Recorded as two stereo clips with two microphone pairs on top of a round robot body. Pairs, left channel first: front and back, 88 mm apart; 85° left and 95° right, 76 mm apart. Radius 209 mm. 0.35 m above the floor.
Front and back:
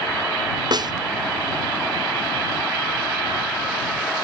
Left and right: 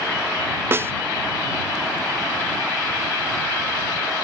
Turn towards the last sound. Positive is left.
turn(degrees=-145)